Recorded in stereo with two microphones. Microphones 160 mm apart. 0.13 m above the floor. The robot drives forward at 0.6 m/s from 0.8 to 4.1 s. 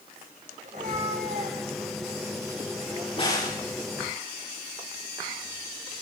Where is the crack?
35° left (ahead or behind), 8 m.